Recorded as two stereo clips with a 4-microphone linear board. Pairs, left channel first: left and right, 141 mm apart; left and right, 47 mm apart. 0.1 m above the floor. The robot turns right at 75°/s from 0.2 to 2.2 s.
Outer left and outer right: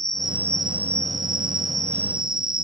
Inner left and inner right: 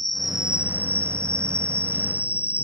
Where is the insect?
Straight behind; by 2.6 s 30° right.